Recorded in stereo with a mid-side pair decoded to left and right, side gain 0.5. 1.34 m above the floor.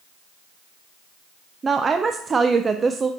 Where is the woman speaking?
30° right, 0.5 m.